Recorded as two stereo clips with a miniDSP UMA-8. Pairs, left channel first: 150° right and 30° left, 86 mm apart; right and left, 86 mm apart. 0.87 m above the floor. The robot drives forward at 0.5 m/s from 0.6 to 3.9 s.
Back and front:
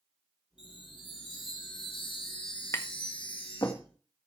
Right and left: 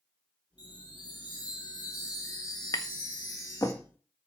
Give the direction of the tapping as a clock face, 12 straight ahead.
4 o'clock.